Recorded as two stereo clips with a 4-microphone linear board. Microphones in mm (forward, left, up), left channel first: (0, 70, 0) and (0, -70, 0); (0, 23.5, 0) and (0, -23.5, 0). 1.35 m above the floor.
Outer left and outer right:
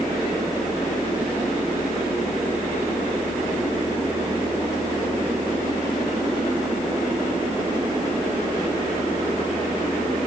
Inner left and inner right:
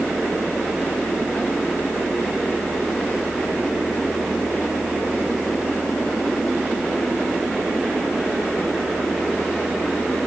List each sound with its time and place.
Only background noise.